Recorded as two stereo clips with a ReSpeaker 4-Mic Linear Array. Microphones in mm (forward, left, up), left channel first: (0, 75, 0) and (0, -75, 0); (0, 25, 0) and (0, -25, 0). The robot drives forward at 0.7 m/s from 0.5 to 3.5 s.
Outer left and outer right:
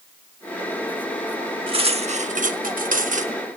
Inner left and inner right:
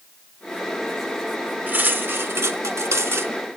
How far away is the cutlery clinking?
About 1.0 m.